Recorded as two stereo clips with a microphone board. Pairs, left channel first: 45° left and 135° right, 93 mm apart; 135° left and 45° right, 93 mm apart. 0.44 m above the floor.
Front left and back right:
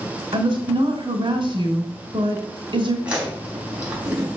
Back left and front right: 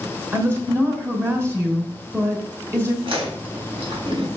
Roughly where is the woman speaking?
Right.